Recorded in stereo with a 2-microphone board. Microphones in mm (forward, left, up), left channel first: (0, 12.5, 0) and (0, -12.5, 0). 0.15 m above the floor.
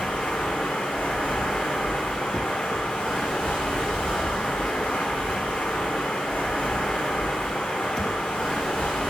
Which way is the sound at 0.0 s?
90° left.